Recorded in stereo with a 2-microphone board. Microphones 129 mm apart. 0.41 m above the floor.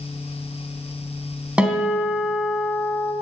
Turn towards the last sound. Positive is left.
turn(degrees=-10)  # may be behind; listen again after turning